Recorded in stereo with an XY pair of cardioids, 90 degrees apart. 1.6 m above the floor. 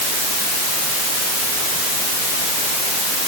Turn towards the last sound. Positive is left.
No sound to turn to.